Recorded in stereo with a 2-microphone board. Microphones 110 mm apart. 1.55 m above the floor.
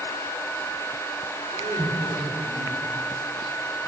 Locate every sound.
1.5 s laughter: 75° right (ahead or behind), 6 m